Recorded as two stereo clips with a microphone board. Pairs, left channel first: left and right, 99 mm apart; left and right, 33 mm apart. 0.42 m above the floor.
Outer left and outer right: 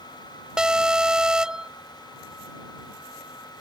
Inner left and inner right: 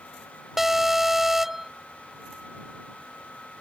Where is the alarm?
10° right (ahead or behind).